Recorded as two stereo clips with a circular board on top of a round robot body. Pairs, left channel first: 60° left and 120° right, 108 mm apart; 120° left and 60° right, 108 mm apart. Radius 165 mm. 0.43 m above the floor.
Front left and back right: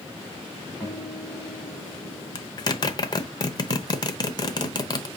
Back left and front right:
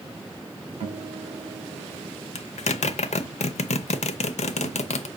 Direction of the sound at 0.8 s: 25° right.